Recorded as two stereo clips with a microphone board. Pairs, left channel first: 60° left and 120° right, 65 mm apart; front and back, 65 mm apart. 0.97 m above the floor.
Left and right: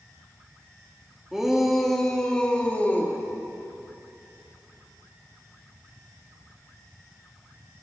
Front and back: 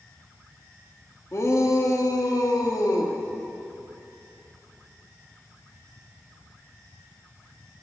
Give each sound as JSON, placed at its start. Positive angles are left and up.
{"t": 1.3, "sound": "a shout", "azimuth_deg": -35, "distance_m": 1.7}